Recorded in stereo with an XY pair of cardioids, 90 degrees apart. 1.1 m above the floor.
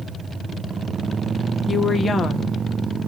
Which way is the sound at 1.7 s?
30° left.